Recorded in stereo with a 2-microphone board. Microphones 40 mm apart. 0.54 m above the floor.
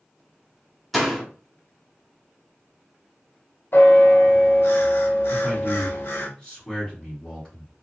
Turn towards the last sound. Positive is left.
turn(degrees=20)  # may be behind; listen again after turning